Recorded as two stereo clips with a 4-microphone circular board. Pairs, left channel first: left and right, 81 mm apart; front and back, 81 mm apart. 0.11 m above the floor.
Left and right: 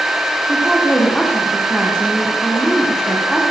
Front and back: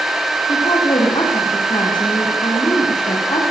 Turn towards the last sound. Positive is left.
turn(degrees=5)